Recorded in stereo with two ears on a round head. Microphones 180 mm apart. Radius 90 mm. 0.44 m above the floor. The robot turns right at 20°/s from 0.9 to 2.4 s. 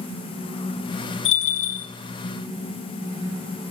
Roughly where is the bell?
Left.